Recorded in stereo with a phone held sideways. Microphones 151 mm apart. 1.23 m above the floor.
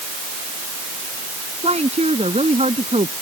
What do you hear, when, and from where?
1.6 s a woman speaking: 45° right (ahead or behind)